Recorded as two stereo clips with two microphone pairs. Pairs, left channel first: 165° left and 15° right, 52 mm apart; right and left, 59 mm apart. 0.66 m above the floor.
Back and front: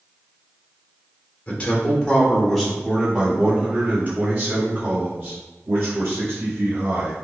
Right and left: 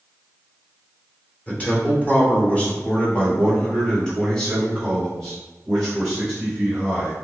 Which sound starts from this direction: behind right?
A man speaking, at 1.5 s.